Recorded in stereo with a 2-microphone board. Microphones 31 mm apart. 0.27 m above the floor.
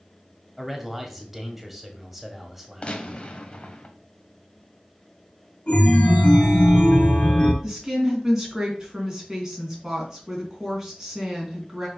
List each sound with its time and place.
0.6 s a man speaking: 10° right (ahead or behind), 1.4 m
2.8 s a gunshot: 35° left (ahead or behind), 1.1 m
5.7 s a chime: 40° left (ahead or behind), 1.8 m
7.6 s a woman speaking: 15° right (ahead or behind), 3 m